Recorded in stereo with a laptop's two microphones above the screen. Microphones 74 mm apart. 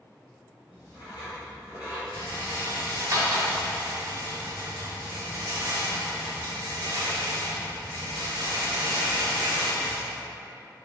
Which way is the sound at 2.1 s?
50° right (ahead or behind).